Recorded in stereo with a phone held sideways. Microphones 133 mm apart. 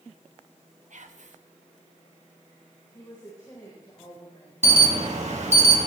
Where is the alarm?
60° right (ahead or behind), 2.5 m.